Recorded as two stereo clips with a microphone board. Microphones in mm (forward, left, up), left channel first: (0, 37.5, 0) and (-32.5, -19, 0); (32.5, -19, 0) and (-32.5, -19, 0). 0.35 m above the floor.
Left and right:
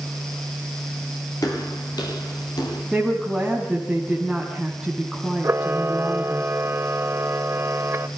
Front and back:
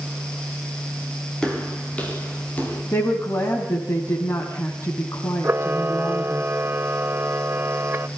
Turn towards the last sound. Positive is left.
turn(degrees=-145)